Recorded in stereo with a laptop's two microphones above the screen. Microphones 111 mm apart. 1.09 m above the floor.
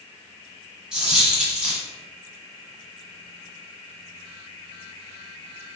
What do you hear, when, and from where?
0.9 s a dropped coin: 5° right (ahead or behind), 1.2 m